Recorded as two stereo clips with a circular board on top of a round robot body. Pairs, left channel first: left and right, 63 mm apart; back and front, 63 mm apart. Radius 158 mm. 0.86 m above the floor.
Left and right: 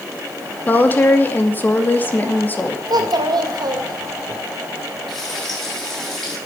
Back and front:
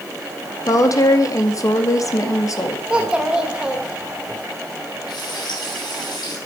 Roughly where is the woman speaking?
Behind left.